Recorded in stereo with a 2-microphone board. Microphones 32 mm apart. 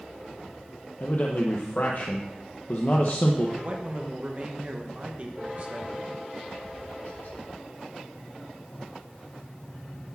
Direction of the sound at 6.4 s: 80° left.